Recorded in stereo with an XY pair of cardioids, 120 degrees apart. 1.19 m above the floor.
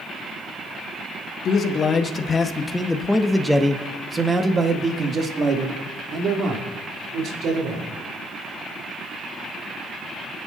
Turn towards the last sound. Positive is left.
turn(degrees=-60)